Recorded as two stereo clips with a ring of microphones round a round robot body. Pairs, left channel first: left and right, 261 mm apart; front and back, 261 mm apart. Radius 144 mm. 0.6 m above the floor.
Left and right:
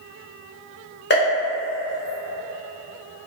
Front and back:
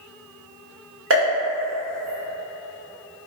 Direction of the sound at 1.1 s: 140° left.